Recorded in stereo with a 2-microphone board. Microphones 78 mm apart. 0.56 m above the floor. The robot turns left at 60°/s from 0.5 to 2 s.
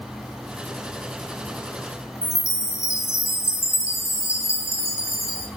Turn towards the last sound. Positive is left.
turn(degrees=40)  # may be behind; listen again after turning